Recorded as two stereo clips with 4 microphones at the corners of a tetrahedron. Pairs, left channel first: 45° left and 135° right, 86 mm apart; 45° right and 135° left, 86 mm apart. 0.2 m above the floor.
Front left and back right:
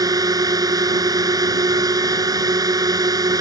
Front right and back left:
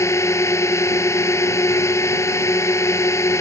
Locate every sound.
0.0 s a drone: 95° right